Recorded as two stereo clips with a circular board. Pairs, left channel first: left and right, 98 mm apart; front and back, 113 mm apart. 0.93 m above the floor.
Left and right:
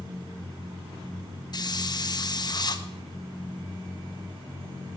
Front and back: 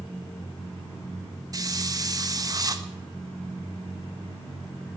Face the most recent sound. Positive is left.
turn(degrees=130)